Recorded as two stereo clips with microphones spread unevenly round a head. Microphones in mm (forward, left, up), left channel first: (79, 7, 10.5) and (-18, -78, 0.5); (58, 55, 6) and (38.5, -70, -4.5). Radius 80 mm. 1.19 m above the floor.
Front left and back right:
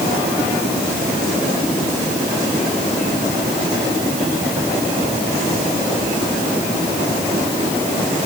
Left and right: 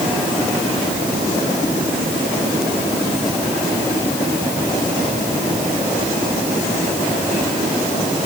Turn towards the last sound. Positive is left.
No sound to turn to.